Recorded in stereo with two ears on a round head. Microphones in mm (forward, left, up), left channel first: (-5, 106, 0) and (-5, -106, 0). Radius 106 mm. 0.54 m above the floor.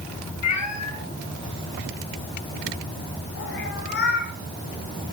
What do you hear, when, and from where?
0.4 s a cat meowing: 80° left, 2.5 m; by 4.3 s 45° left (ahead or behind), 4 m